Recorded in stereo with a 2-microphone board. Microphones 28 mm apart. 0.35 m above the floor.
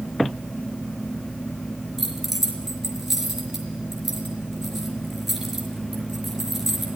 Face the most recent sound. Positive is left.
turn(degrees=-10)  # may be behind; listen again after turning